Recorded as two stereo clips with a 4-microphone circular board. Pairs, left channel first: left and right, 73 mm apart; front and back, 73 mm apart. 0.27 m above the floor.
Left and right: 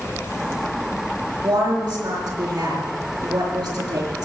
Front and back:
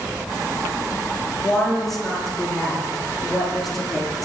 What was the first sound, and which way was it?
A woman speaking, 85° right.